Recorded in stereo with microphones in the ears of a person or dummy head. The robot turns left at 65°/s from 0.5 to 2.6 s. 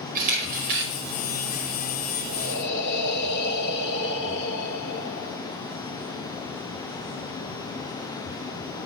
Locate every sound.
0.1 s a camera shutter: 50° right (ahead or behind), 5 m; by 0.9 s 75° right (ahead or behind), 5 m
2.3 s breathing: 85° left, 1.5 m; by 5.4 s 65° left (ahead or behind), 1.5 m